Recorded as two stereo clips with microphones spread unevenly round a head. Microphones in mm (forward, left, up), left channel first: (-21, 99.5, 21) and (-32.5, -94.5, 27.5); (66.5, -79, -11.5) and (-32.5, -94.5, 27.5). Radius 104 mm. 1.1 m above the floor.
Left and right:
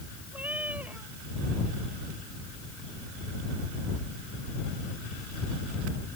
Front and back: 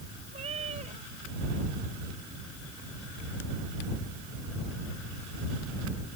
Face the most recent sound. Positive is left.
turn(degrees=-175)